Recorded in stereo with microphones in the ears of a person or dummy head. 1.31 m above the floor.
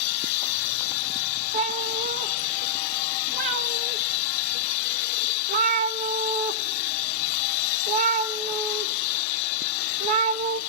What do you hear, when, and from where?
1.5 s a cat meowing: 45° right (ahead or behind), 0.7 m